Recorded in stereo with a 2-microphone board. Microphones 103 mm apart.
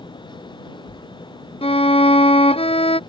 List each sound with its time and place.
1.6 s a violin: 75° left (ahead or behind)